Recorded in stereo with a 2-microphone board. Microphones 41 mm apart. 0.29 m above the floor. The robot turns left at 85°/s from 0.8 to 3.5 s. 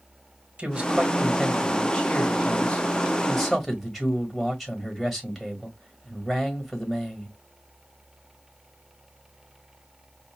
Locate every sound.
0.6 s a man speaking: 120° right, 1.7 m; by 7.3 s 10° left, 1.7 m